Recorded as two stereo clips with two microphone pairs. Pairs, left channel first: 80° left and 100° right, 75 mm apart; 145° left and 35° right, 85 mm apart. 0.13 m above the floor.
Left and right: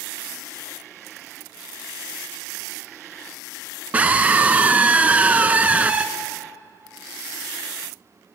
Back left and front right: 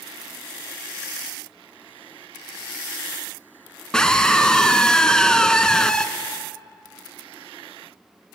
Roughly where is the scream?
Behind right.